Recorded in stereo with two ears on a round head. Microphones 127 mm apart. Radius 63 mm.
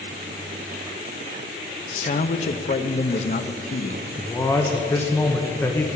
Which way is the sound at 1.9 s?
50° left (ahead or behind).